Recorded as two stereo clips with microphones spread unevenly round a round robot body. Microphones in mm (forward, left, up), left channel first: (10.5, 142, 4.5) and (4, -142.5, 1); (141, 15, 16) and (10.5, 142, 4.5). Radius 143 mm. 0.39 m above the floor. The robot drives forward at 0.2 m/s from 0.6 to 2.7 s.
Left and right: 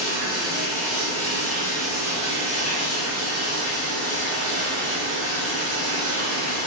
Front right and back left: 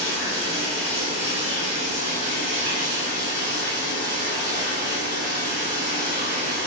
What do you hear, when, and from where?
0.0 s running water: 140° left, 1.3 m; by 6.7 s 155° left, 1.6 m